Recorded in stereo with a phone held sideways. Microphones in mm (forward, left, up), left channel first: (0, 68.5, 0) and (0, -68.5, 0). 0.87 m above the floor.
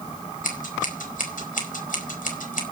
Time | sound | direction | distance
0.4 | scissors | 75° left (ahead or behind) | 4.5 m